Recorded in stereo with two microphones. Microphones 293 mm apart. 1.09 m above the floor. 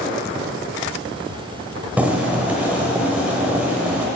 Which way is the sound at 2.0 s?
5° right (ahead or behind).